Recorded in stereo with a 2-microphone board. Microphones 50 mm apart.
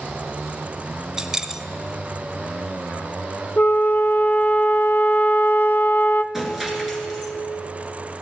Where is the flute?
45° left (ahead or behind), 0.6 m.